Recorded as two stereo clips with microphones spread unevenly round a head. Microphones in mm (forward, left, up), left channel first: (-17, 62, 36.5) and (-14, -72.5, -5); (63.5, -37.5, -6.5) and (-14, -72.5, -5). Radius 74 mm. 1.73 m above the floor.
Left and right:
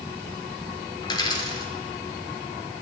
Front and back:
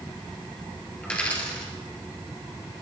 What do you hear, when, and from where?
1.0 s a dropped coin: 100° left, 2 m